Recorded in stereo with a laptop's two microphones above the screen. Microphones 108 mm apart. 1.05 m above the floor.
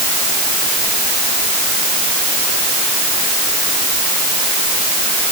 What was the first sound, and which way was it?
Only background noise.